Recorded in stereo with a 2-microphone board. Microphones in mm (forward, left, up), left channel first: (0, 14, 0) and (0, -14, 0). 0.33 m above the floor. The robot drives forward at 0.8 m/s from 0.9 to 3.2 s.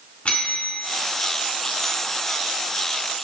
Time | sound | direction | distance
0.2 | a bell | 50° left (ahead or behind) | 3.5 m